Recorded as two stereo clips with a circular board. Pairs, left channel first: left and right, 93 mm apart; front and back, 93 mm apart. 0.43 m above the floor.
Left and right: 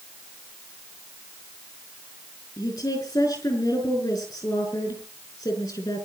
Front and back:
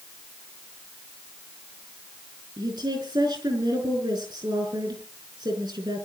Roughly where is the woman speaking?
Behind left.